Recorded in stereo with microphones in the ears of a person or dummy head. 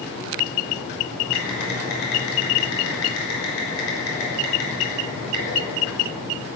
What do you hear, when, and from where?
1.3 s typing on a keyboard: 85° left, 6 m